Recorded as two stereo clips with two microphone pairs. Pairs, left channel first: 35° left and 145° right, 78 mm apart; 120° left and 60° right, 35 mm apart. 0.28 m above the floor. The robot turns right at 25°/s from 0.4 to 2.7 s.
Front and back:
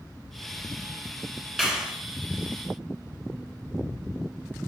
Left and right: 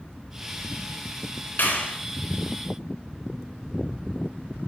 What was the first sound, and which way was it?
A clap, 125° left.